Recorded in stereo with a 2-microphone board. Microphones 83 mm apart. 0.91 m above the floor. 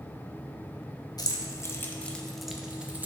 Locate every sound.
1.2 s keys jangling: 50° left (ahead or behind), 0.8 m; by 3.1 s 20° right (ahead or behind), 0.9 m